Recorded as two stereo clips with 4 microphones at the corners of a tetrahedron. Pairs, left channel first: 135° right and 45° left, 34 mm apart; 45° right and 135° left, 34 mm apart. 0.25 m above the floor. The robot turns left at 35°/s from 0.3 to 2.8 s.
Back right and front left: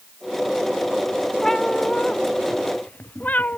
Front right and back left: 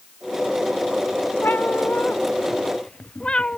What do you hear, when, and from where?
1.4 s a cat meowing: 60° right; by 3.6 s 105° right